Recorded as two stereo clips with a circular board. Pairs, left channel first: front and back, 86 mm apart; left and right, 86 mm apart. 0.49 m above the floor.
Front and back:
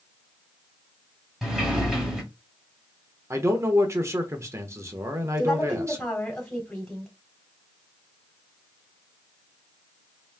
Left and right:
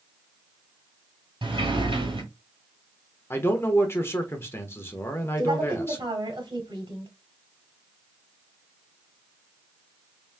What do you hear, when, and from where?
1.4 s a sliding door: 95° right, 1.9 m
3.3 s a man speaking: 140° left, 1.0 m
5.4 s a woman speaking: 80° right, 2.5 m